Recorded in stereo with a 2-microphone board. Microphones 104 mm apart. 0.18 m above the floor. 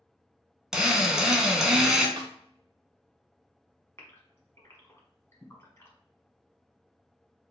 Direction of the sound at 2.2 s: 50° right (ahead or behind).